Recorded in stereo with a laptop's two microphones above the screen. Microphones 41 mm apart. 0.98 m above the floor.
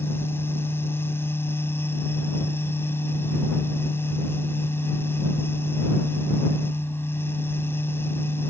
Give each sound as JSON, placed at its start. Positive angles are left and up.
{"t": 0.0, "sound": "a fan", "side_deg": 70}